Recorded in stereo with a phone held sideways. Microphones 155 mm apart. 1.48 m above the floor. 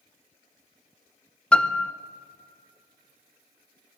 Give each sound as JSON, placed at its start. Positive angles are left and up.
{"t": 1.5, "sound": "a piano", "side_deg": 5, "distance_m": 0.7}